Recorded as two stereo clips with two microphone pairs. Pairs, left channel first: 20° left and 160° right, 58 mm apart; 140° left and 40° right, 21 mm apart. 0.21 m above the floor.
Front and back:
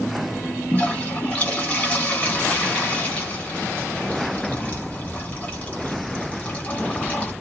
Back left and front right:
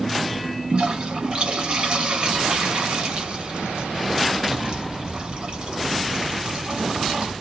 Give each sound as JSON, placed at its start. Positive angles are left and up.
{"t": 0.7, "sound": "a toilet flushing", "azimuth_deg": -35, "distance_m": 1.4}